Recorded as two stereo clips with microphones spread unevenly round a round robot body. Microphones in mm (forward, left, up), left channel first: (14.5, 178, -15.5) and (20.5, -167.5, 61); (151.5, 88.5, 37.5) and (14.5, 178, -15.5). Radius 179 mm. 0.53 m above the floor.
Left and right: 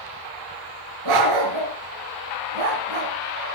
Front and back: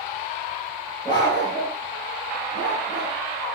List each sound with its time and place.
1.1 s a dog barking: 110° right, 4.5 m; by 3.1 s 80° right, 3 m